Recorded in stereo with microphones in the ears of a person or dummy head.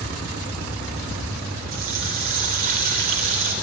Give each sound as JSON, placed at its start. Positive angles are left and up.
{"t": 1.7, "sound": "a running tap", "side_deg": -45, "distance_m": 3.0}